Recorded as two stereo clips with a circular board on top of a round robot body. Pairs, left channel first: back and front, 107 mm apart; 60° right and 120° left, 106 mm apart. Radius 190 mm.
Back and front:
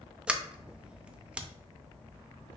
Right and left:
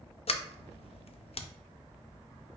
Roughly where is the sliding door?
Right.